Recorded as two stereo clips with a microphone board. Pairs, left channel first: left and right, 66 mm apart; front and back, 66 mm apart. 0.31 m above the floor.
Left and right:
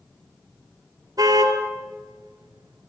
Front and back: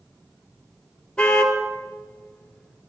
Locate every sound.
1.2 s a car horn: 75° right, 3 m